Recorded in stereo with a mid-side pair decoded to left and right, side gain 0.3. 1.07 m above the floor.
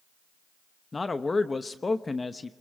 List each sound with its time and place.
0.9 s a man speaking: 40° left, 1.0 m